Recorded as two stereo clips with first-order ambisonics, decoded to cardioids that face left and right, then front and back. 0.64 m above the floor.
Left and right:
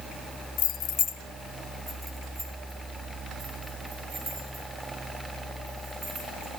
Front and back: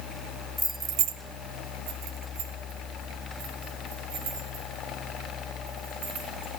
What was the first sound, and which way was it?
Keys jangling, 75° left.